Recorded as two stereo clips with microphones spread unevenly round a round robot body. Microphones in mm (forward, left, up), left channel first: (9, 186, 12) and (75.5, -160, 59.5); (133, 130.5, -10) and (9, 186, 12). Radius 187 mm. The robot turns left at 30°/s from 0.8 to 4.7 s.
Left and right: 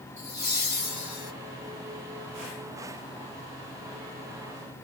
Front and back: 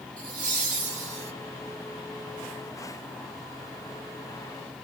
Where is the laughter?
165° right, 3 m; by 1.3 s straight behind, 3 m.